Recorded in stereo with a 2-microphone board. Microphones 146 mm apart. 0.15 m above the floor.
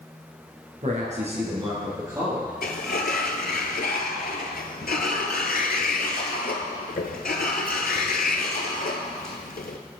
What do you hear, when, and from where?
0.8 s a man speaking: 55° right (ahead or behind), 2.0 m; by 2.5 s 10° right (ahead or behind), 2.5 m
2.6 s a sliding door: 80° left, 0.6 m